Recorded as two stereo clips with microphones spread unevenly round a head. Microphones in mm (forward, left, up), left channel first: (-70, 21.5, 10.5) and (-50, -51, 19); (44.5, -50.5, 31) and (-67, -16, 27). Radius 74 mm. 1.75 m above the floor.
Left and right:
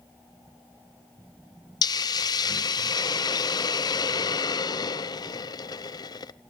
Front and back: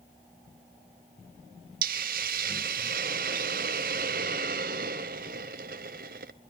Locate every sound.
1.8 s a hiss: 135° left, 0.7 m